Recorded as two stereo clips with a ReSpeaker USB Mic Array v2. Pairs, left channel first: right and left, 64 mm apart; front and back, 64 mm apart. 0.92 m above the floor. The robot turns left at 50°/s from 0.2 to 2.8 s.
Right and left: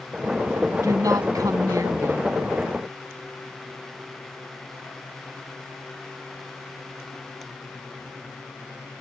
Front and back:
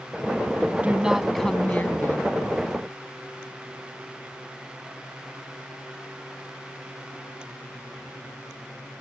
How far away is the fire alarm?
No fire alarm in this recording.